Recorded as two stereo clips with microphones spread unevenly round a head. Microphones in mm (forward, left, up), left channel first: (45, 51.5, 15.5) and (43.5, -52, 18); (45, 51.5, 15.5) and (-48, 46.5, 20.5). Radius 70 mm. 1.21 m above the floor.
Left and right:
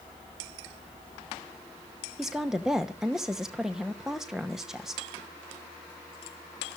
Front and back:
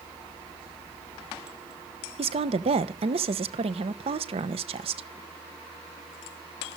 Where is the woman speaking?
Straight behind, 1.1 m.